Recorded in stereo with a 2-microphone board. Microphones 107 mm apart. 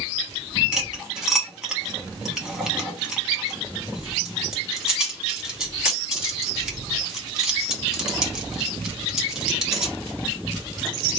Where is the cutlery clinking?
5° right (ahead or behind), 1.2 m.